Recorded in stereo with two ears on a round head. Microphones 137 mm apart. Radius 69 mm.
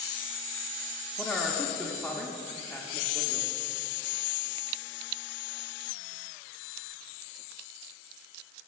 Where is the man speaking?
10° left (ahead or behind), 0.7 m.